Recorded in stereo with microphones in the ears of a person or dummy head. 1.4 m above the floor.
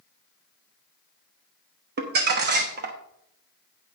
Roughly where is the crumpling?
Right.